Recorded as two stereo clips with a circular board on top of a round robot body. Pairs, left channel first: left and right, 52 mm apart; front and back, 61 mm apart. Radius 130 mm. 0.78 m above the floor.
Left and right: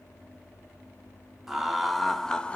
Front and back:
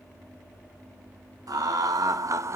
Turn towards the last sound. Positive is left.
turn(degrees=150)